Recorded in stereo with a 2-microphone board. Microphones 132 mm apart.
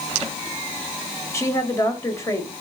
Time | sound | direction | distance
1.3 | a woman speaking | 20° left (ahead or behind) | 1.4 m